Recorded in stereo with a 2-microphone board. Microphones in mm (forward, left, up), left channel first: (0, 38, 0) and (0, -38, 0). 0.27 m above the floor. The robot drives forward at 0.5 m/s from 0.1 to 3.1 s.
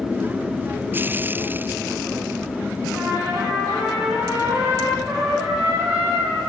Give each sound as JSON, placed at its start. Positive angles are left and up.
{"t": 2.9, "sound": "a trumpet", "side_deg": -15, "distance_m": 9.0}